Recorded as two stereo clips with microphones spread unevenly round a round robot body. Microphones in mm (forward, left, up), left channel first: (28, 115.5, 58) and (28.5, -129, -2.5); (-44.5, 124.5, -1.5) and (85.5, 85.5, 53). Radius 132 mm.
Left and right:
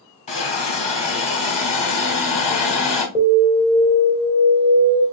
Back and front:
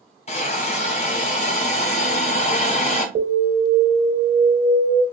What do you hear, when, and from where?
0.3 s a hiss: 160° left, 1.2 m
3.1 s an alarm: 20° right, 3 m